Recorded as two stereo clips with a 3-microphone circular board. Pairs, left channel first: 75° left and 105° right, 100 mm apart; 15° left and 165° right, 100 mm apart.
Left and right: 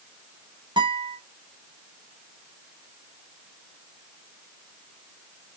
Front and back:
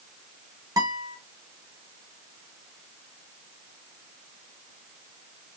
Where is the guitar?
125° right, 1.5 m.